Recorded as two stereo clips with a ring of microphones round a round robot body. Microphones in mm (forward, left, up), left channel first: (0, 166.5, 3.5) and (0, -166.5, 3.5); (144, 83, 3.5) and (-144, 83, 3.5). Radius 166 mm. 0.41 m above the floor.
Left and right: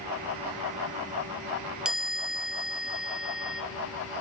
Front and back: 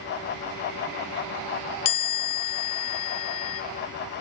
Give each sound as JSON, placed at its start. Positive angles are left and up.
{"t": 1.9, "sound": "a chime", "azimuth_deg": -5, "distance_m": 0.5}